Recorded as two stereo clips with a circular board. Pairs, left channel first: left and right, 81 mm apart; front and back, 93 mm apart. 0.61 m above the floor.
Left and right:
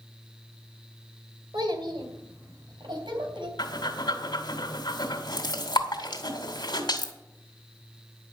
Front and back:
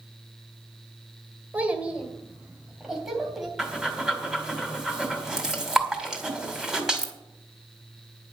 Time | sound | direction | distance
1.5 | a child speaking | 105° right | 2.5 m
3.6 | breathing | 95° left | 2.5 m